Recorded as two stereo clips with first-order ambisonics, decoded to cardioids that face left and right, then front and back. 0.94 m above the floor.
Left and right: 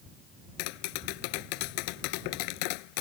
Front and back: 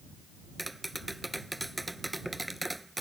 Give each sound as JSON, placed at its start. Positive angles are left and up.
{"t": 0.6, "sound": "tapping", "azimuth_deg": 95}